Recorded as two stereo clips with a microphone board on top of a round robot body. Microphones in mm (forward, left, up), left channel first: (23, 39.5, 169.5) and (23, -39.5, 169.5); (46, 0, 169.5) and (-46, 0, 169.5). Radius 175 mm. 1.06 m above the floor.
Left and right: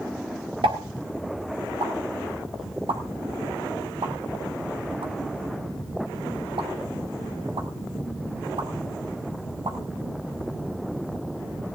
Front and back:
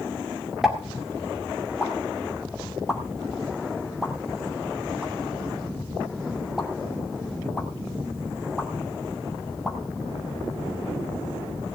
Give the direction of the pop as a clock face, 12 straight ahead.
3 o'clock.